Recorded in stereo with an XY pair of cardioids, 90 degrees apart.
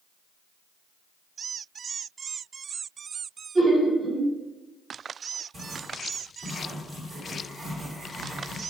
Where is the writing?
50° right, 1.9 m.